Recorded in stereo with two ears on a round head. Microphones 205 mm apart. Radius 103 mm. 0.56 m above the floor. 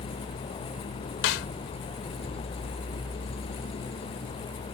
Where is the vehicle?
25° left (ahead or behind).